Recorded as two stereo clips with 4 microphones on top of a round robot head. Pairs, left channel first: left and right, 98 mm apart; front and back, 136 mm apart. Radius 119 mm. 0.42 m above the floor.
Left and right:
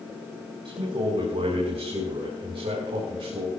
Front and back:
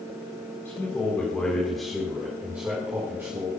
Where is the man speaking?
70° right, 4 m; by 3.5 s 110° right, 5 m.